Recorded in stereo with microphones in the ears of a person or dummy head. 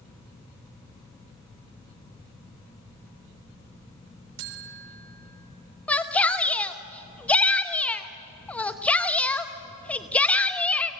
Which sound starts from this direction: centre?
A shout, at 5.9 s.